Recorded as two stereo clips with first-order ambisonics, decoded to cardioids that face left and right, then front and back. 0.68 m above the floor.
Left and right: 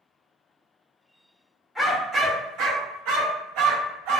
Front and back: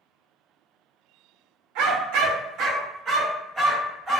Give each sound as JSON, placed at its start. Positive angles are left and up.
{"t": 1.8, "sound": "a dog barking", "azimuth_deg": 180, "distance_m": 0.6}